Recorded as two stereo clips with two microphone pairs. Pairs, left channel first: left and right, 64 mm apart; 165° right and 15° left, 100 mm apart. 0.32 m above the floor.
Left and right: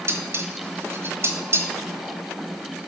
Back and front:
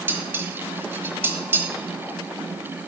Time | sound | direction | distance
0.1 | dishes clattering | 50° right | 1.4 m